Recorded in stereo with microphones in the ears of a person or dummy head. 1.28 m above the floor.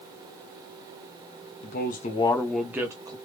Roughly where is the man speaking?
Left.